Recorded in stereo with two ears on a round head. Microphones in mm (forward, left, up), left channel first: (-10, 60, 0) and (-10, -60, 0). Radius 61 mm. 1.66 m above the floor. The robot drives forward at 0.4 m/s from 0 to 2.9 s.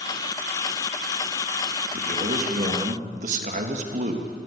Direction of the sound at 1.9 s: 50° right (ahead or behind).